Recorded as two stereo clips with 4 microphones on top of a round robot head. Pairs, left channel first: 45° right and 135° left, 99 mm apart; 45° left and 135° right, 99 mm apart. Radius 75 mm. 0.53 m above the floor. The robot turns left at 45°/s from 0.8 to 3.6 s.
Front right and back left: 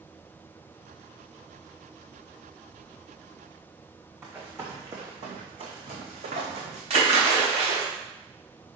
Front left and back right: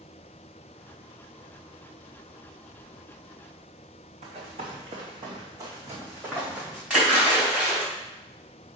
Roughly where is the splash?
Behind left.